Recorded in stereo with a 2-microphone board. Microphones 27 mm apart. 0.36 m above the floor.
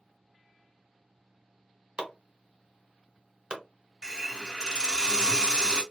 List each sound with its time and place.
2.0 s chopping: 40° right (ahead or behind), 0.9 m
4.0 s a hiss: 25° right (ahead or behind), 1.0 m